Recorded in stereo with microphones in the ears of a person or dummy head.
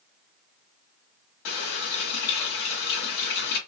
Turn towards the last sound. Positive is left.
turn(degrees=60)  # may be behind; listen again after turning